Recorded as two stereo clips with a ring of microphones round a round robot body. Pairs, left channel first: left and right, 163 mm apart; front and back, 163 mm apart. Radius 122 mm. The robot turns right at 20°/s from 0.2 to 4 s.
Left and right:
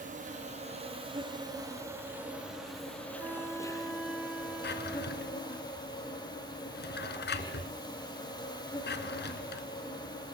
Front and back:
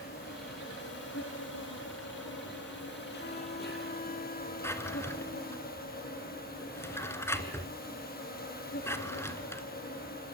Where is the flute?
20° right, 2 m; by 5.6 s 5° right, 2 m.